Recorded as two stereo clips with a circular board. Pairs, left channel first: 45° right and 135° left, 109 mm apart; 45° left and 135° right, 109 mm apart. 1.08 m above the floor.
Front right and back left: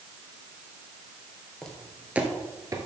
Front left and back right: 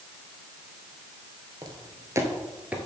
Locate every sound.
1.6 s footsteps: 125° right, 1.3 m; by 2.9 s 150° left, 1.2 m